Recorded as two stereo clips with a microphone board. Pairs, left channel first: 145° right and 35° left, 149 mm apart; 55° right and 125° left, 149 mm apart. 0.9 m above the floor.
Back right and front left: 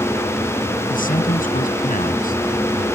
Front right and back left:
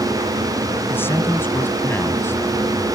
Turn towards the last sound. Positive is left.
turn(degrees=-130)